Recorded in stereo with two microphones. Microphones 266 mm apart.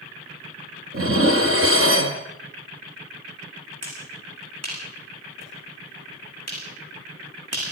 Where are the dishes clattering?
55° right (ahead or behind), 2 m.